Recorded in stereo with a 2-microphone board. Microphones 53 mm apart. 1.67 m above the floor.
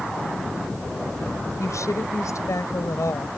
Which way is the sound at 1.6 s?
90° left.